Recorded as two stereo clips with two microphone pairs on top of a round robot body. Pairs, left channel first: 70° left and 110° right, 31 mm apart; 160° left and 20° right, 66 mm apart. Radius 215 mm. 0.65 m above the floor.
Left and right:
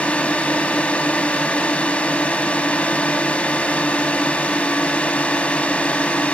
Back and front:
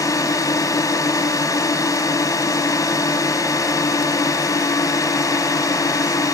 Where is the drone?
125° left.